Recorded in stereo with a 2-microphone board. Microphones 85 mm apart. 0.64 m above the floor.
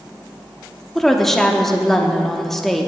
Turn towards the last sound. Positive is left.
turn(degrees=5)  # may be behind; listen again after turning